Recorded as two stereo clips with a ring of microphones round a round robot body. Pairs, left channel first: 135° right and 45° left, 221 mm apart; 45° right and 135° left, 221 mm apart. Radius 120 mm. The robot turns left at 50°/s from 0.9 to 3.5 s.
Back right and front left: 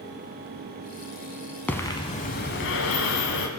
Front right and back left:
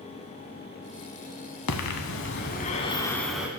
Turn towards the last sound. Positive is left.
turn(degrees=-145)